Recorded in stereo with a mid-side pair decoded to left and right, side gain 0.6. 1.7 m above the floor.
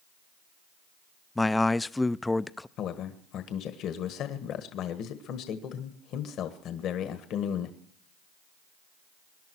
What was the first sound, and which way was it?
A man speaking, 10° left.